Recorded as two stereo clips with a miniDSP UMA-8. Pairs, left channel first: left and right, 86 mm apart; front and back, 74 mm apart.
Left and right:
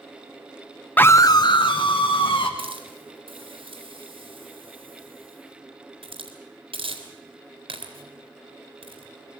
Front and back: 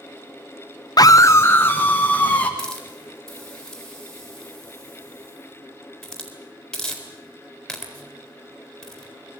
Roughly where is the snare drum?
No snare drum in this recording.